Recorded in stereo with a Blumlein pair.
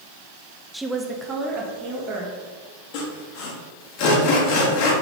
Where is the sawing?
45° left, 1.3 m.